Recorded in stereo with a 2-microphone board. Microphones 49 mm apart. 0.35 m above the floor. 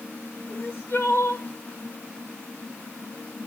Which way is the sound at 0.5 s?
60° left (ahead or behind).